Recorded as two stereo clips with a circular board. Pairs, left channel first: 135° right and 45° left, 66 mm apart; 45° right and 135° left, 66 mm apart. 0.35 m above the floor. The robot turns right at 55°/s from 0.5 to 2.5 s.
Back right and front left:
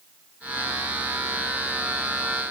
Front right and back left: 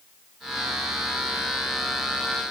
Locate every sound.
Only background noise.